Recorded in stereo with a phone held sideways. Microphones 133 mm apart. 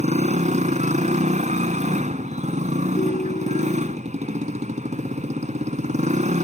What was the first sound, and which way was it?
A motorcycle, 65° right (ahead or behind).